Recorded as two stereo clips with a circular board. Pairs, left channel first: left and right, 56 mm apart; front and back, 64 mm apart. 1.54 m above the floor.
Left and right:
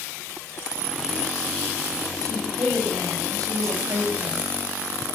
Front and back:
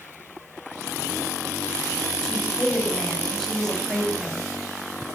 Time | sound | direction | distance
2.2 | a woman speaking | 80° right | 6 m